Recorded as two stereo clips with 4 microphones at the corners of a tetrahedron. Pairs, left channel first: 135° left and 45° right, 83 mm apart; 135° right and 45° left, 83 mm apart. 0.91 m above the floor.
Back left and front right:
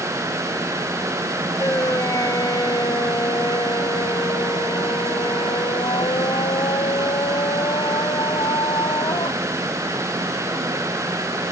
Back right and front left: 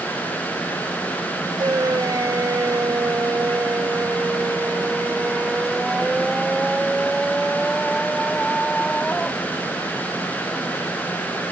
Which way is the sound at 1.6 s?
85° left.